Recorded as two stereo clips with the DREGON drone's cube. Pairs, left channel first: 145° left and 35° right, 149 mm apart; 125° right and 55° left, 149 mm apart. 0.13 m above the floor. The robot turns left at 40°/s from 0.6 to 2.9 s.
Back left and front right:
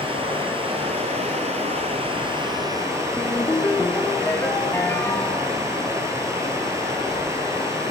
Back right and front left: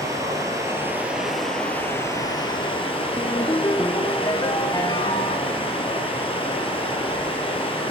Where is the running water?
5° right, 1.8 m; by 7.9 s 95° right, 1.8 m.